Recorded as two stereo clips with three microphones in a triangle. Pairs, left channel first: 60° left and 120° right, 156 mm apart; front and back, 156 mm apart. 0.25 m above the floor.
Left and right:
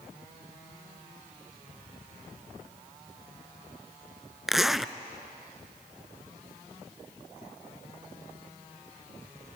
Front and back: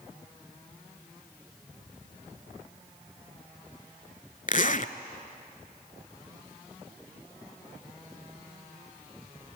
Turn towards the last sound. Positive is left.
turn(degrees=-30)